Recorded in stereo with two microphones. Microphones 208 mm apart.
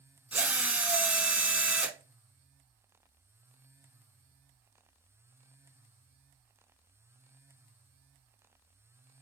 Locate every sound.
0.3 s a drill: 10° right (ahead or behind), 0.5 m